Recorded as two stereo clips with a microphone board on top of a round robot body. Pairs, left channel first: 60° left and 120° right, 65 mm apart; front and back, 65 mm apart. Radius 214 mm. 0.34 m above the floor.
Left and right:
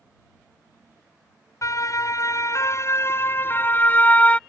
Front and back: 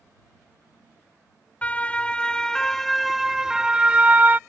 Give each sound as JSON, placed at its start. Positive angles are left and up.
{"t": 1.6, "sound": "a siren", "azimuth_deg": 65}